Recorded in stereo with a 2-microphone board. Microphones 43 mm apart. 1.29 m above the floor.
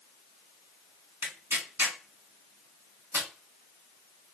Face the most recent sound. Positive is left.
turn(degrees=-65)  # may be behind; listen again after turning